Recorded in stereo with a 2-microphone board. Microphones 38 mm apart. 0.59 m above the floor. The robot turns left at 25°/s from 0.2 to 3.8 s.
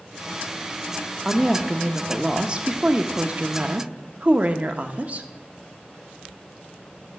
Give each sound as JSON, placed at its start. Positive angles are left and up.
{"t": 1.2, "sound": "a woman speaking", "azimuth_deg": -5, "distance_m": 0.8}